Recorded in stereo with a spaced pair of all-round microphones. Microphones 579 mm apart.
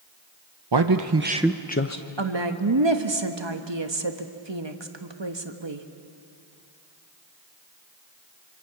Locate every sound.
0.7 s a man speaking: 45° right (ahead or behind), 0.9 m; by 2.0 s 35° left (ahead or behind), 0.8 m
2.2 s a woman speaking: 50° right (ahead or behind), 1.2 m